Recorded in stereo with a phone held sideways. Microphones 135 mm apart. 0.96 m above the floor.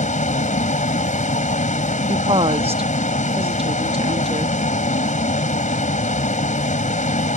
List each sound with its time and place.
0.0 s a vehicle: 65° left (ahead or behind)
2.1 s a woman speaking: 45° right (ahead or behind)